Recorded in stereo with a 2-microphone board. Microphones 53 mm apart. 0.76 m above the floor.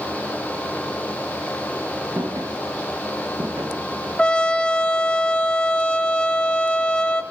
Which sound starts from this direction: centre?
A trumpet, at 4.2 s.